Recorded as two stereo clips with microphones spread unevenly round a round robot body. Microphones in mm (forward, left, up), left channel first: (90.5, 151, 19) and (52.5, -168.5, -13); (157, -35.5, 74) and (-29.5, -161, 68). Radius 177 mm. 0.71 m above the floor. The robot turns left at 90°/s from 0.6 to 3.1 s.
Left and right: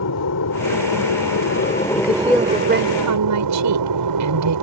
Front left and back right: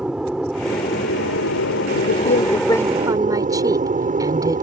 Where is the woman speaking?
30° left; by 4.6 s 75° right.